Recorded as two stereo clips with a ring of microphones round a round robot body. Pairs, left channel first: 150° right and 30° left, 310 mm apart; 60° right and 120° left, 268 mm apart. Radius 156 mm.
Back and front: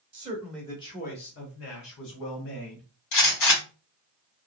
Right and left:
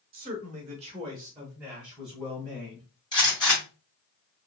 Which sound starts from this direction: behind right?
A gunshot, at 3.1 s.